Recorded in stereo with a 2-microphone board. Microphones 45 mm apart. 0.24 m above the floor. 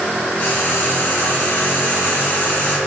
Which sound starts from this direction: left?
Frying, at 0.4 s.